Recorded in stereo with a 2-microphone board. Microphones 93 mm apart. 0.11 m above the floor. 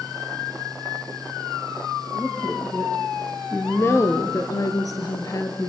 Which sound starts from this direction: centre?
A woman speaking, at 2.1 s.